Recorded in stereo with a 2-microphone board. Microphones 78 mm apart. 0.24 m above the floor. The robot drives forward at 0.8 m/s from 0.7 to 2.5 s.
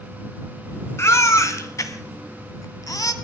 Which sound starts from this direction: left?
A baby crying, at 1.0 s.